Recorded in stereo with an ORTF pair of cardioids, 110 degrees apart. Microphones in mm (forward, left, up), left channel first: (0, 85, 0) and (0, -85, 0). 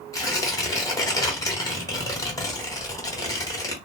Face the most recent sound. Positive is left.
turn(degrees=20)